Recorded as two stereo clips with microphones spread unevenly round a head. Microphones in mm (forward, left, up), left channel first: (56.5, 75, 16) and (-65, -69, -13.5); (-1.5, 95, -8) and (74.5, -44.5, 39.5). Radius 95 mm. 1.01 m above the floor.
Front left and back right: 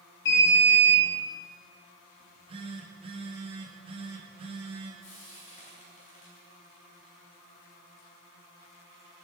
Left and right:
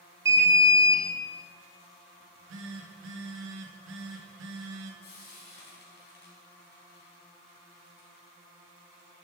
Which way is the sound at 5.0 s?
100° left.